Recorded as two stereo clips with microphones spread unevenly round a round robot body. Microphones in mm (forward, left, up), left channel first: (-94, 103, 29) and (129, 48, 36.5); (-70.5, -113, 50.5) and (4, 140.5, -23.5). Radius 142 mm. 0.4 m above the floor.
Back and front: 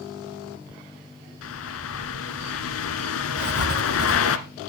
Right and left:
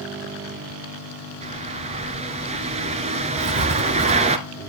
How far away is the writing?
About 1.2 m.